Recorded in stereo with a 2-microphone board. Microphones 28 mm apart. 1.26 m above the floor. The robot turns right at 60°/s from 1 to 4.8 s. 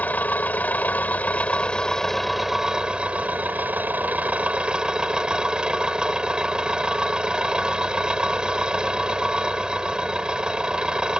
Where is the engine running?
100° left; by 11.2 s 30° right.